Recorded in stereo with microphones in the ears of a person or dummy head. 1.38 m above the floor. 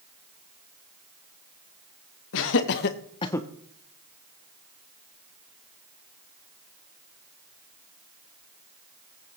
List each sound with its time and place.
2.3 s laughter: 75° left (ahead or behind), 1.5 m; by 3.5 s 5° left (ahead or behind), 0.8 m